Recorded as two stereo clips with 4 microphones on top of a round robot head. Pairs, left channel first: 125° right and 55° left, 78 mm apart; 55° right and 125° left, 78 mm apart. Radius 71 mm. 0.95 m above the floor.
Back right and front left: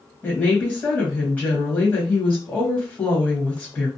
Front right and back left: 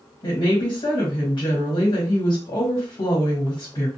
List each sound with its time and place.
0.2 s a woman speaking: 55° right, 1.3 m